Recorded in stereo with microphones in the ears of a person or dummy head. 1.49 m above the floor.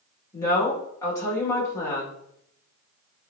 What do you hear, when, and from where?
0.3 s a woman speaking: 25° left (ahead or behind), 1.6 m